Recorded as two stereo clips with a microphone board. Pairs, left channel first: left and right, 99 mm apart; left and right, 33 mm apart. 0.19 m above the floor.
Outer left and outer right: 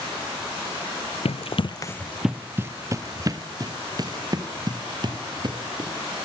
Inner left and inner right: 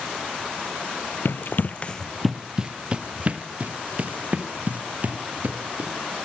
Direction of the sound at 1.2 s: 80° left.